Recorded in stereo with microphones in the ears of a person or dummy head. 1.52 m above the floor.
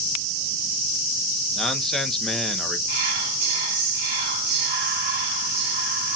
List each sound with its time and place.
1.6 s a man speaking: 5° left (ahead or behind), 1.1 m
2.9 s whispering: 55° right (ahead or behind), 2.5 m